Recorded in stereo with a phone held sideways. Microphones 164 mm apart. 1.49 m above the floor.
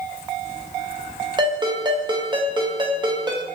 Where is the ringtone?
30° right (ahead or behind), 0.7 m.